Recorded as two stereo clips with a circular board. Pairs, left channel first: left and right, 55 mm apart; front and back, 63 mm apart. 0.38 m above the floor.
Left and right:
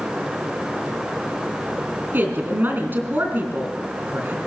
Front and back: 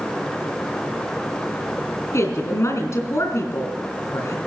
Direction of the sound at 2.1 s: 40° right.